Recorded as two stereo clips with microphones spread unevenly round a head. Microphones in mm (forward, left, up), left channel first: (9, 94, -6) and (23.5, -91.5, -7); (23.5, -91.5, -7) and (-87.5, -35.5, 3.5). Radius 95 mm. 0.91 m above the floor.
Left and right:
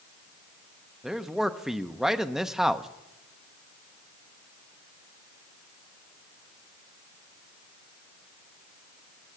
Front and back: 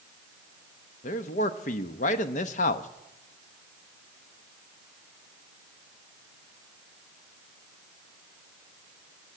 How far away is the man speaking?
About 0.8 m.